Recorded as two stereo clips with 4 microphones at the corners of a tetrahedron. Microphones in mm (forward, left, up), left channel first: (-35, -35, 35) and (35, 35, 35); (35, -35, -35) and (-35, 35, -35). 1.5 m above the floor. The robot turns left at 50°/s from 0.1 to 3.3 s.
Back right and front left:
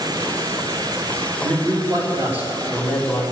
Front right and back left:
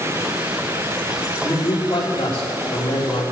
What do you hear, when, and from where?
1.4 s a man speaking: 25° left, 3.5 m; by 3.2 s 65° right, 3.5 m